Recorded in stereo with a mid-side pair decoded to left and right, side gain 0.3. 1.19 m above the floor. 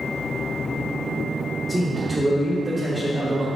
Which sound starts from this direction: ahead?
A man speaking, at 1.7 s.